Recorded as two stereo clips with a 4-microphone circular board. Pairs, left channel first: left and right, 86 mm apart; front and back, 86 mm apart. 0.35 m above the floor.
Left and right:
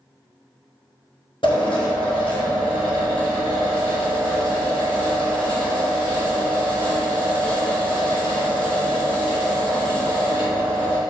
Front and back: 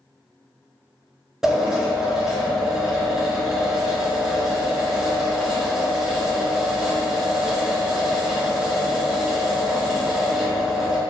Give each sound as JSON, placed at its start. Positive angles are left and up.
{"t": 1.4, "sound": "a drill", "azimuth_deg": 95, "distance_m": 1.8}